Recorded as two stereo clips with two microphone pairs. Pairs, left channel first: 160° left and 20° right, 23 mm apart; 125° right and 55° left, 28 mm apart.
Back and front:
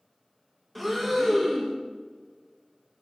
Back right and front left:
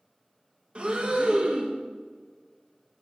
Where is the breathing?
70° left, 0.9 m.